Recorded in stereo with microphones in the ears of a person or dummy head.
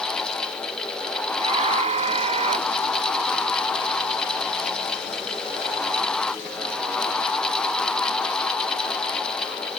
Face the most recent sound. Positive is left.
turn(degrees=-35)  # may be behind; listen again after turning